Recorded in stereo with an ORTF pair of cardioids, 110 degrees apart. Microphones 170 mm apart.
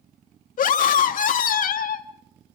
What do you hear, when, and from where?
0.6 s a scream: 55° left, 2.5 m